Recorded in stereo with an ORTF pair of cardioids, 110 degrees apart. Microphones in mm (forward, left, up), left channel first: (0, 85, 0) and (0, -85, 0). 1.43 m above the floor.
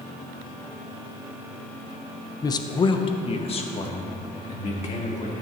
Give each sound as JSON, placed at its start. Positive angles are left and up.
{"t": 2.4, "sound": "a man speaking", "azimuth_deg": 25, "distance_m": 0.8}